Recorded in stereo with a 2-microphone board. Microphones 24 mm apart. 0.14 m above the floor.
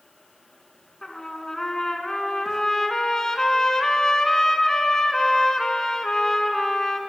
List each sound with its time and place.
1.0 s a trumpet: 25° left (ahead or behind), 1.5 m